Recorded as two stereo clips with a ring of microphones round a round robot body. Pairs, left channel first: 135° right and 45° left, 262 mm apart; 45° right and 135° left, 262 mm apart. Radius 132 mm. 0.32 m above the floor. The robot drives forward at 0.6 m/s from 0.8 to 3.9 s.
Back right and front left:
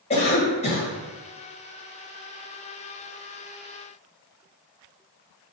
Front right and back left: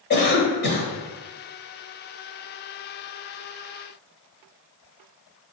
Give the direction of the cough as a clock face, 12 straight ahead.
3 o'clock.